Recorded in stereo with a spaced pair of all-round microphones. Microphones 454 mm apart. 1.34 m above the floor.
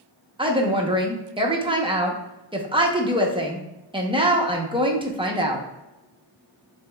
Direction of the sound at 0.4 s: 10° right (ahead or behind).